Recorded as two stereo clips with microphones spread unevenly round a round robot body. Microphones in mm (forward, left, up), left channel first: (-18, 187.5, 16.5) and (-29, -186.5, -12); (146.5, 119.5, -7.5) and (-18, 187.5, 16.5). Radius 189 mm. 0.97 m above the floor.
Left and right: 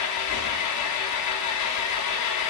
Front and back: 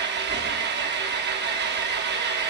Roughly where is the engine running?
Behind left.